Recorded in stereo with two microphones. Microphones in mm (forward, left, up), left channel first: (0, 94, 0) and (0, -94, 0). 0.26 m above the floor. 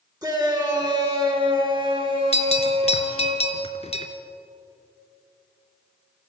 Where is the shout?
20° right (ahead or behind), 3 m; by 3.3 s 35° right (ahead or behind), 5 m.